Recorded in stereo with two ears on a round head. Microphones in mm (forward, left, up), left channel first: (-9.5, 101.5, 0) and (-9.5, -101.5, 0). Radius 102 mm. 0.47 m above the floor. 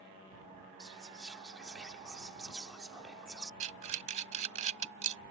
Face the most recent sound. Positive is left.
turn(degrees=-30)  # may be behind; listen again after turning